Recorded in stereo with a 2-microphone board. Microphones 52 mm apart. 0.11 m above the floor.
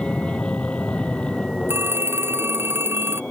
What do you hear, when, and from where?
0.0 s an aircraft: 20° left (ahead or behind)
1.7 s a phone ringing: 50° right (ahead or behind)